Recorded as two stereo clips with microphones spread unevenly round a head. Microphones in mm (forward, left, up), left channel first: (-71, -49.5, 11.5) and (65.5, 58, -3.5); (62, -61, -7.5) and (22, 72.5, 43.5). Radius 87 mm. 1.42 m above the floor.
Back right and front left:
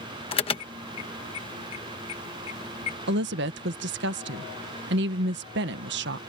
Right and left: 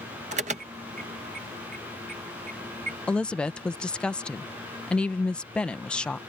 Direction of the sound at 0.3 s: 160° left.